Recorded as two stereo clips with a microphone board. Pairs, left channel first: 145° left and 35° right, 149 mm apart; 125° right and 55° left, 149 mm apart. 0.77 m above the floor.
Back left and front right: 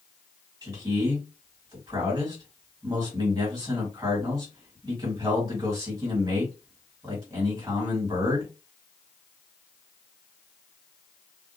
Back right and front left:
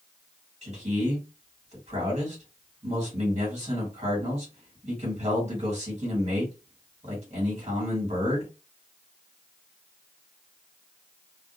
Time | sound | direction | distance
0.6 | a man speaking | 20° left | 1.7 m